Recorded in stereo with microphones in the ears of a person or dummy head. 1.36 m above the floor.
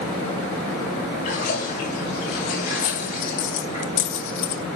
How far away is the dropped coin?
About 1.5 m.